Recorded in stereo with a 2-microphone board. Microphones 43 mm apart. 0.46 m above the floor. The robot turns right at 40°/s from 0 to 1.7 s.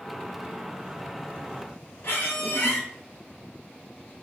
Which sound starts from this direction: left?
A squeak, at 2.0 s.